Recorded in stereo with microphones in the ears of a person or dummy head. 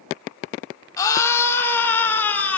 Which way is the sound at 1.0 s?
15° left (ahead or behind).